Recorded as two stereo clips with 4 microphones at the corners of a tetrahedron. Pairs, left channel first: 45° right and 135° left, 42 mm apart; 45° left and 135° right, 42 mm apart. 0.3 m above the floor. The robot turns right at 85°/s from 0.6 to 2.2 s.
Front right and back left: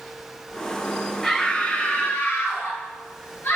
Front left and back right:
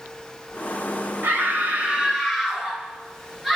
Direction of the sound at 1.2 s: 135° right.